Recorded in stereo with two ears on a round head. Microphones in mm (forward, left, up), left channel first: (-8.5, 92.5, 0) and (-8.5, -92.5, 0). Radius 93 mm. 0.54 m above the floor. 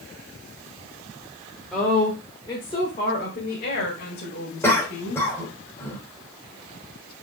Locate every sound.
1.7 s a woman speaking: centre (ahead or behind), 1.5 m; by 5.2 s 60° left (ahead or behind), 2.5 m
4.6 s a cough: 10° left (ahead or behind), 2.5 m